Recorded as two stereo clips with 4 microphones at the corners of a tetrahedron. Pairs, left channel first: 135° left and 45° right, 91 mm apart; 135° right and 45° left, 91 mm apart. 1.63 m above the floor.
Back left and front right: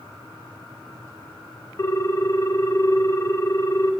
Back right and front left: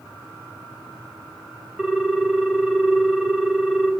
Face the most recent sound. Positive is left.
turn(degrees=130)